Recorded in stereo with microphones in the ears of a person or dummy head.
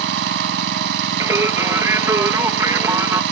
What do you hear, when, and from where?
0.0 s an engine running: 70° right (ahead or behind)
1.2 s singing: 10° right (ahead or behind)